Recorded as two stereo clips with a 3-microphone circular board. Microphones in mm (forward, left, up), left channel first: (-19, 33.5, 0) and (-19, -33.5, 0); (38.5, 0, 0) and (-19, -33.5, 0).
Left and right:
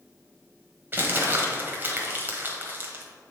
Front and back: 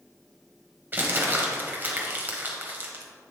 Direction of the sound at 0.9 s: 115° right.